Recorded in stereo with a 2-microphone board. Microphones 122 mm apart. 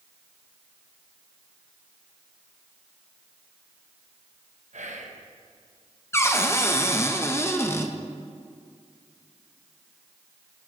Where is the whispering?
80° right, 1.1 m.